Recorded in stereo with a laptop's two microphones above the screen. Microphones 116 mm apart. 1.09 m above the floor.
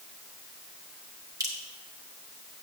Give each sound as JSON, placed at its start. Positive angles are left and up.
{"t": 1.4, "sound": "dripping", "side_deg": -30, "distance_m": 2.5}